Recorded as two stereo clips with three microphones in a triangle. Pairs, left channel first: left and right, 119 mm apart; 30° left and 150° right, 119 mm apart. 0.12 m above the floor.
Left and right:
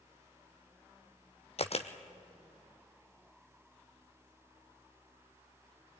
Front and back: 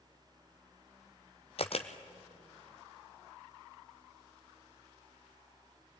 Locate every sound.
1.6 s a camera shutter: 65° left, 1.1 m